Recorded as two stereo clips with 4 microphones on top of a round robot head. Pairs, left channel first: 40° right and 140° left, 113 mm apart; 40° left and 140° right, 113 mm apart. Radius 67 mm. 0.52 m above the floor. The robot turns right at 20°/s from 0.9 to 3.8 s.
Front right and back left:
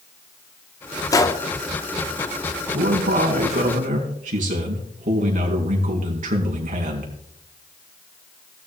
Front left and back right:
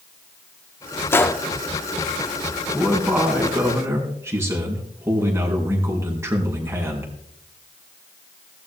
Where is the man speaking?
135° left, 4.5 m; by 7.1 s 155° left, 4.5 m.